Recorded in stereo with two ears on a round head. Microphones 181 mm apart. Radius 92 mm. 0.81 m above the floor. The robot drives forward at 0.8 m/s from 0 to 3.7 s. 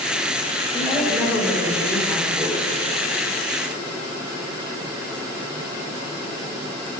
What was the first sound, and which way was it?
A woman speaking, 5° right (ahead or behind).